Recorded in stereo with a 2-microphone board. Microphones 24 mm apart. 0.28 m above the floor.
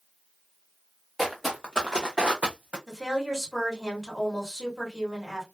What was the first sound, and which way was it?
Footsteps, 5° right (ahead or behind).